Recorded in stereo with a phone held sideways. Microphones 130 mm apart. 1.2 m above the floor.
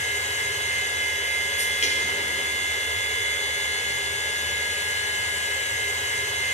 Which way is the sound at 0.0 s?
60° left (ahead or behind).